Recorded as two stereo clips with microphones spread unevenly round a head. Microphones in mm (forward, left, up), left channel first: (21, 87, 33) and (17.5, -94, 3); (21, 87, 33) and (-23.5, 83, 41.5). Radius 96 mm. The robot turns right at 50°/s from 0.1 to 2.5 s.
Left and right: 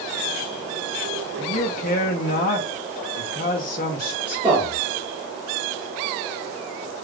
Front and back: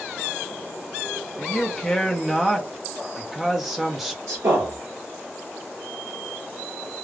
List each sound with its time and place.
1.4 s a man speaking: 40° left, 0.7 m; by 4.2 s 95° left, 0.7 m
4.3 s a man speaking: 170° right, 1.4 m